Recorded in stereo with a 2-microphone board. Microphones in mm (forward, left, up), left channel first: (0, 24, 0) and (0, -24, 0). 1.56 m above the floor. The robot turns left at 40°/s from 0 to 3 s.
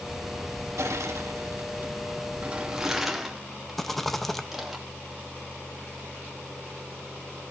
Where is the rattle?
5° left (ahead or behind), 1.2 m.